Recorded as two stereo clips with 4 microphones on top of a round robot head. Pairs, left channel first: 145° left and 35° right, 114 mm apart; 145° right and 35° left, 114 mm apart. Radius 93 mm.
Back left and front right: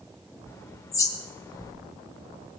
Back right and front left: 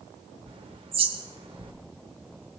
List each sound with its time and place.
0.5 s a bird: 80° left, 1.6 m